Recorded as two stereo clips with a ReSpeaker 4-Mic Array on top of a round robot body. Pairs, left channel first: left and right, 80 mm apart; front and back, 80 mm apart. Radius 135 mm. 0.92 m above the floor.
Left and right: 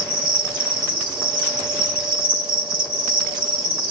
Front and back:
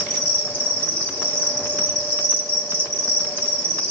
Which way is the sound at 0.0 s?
75° right.